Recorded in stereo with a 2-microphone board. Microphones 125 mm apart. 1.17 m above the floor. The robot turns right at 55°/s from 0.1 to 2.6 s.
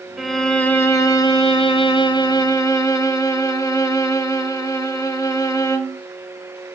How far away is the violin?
About 1.0 m.